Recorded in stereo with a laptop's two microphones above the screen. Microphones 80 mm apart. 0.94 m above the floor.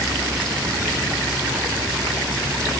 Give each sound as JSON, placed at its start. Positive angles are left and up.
{"t": 0.0, "sound": "a vehicle", "side_deg": -75}